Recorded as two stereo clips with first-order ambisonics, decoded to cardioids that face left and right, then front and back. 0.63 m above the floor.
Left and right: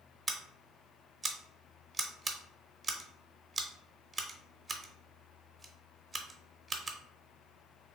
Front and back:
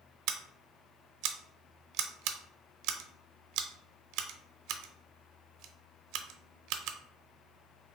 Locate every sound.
0.3 s scissors: 170° right, 0.6 m